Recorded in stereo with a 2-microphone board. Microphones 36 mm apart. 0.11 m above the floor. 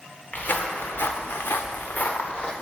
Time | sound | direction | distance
0.3 | footsteps | 50° left (ahead or behind) | 1.0 m